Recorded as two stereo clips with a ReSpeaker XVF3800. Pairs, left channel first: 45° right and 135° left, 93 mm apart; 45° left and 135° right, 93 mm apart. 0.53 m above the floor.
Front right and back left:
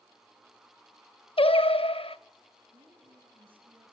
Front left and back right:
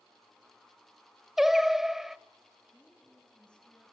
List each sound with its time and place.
1.4 s singing: 50° right, 0.5 m
2.7 s a woman speaking: 125° left, 4.5 m